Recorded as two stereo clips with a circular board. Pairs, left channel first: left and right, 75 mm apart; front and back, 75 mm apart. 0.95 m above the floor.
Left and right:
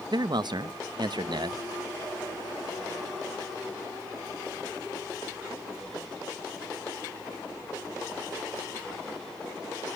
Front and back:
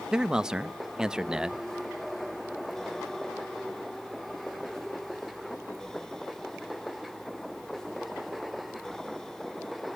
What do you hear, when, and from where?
0.1 s a man speaking: 100° right, 0.6 m